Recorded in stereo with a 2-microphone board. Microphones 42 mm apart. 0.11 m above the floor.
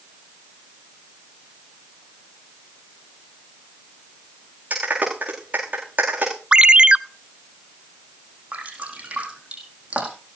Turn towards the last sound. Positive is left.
turn(degrees=-25)  # may be behind; listen again after turning